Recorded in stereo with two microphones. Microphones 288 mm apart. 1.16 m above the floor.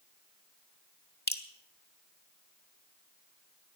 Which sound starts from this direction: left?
Dripping, at 1.3 s.